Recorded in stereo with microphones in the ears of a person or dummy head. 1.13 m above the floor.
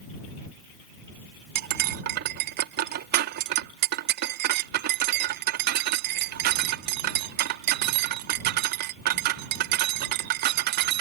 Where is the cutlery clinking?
50° right (ahead or behind).